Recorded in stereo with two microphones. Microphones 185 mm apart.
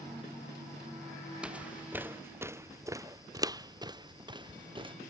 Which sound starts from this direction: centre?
Footsteps, at 1.4 s.